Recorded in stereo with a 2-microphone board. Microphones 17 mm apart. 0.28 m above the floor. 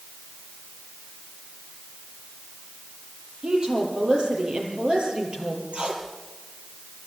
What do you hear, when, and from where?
3.4 s a woman speaking: 70° right (ahead or behind), 7.5 m
5.7 s tape being pulled: 70° right (ahead or behind), 4 m